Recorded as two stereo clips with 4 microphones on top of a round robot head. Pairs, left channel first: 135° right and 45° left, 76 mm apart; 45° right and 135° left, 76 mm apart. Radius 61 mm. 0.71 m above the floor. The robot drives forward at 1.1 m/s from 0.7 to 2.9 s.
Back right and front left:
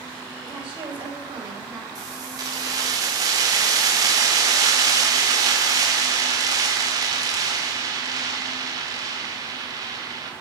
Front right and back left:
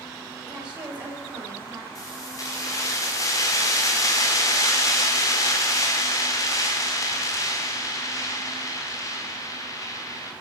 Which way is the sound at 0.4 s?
60° left.